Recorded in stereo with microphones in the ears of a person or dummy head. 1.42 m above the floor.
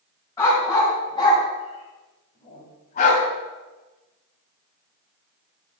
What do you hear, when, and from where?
0.4 s a dog barking: 20° left (ahead or behind), 3 m; by 3.2 s 50° left (ahead or behind), 2.5 m